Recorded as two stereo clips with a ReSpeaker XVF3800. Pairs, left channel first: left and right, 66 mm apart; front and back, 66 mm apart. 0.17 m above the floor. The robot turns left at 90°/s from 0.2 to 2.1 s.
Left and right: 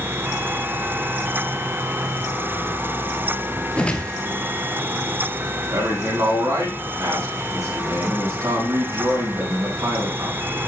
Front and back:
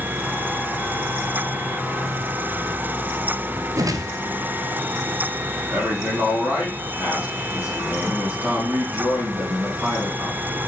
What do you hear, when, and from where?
3.8 s a whoosh: 160° left, 0.9 m
5.7 s a man speaking: 120° right, 5 m